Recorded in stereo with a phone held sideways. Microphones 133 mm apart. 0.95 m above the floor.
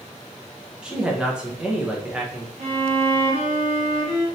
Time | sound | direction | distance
0.8 | a man speaking | 5° right (ahead or behind) | 0.7 m
2.6 | a violin | 65° right (ahead or behind) | 1.5 m